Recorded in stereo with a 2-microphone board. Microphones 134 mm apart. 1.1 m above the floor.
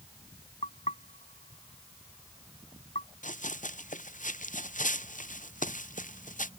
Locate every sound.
0.6 s knocking: 60° left (ahead or behind)
3.2 s running footsteps: 75° left (ahead or behind); by 6.5 s 85° left